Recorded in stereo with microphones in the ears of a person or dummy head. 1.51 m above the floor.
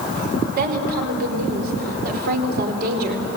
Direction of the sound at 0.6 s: 50° right (ahead or behind).